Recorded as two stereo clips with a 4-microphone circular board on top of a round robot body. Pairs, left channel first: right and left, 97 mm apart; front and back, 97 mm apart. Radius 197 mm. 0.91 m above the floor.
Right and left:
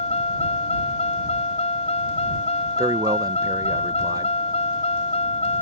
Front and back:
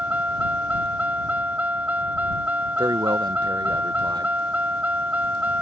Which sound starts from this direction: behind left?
A man speaking, at 2.8 s.